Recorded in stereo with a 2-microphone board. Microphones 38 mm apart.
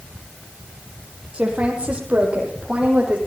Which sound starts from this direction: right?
A woman speaking, at 1.3 s.